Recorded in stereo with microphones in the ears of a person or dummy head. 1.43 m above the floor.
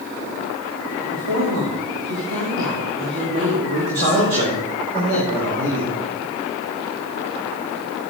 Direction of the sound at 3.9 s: 65° right (ahead or behind).